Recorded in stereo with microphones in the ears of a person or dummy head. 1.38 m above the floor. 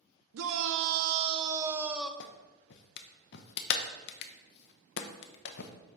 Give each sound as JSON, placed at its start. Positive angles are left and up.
{"t": 0.3, "sound": "a shout", "side_deg": -80, "distance_m": 0.8}
{"t": 2.2, "sound": "a clap", "side_deg": 55, "distance_m": 0.8}